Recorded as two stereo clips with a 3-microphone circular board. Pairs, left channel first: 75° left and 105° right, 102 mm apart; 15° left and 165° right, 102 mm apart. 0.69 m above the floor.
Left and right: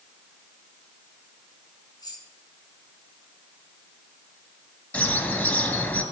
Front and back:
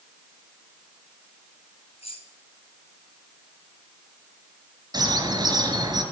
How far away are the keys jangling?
About 5.5 m.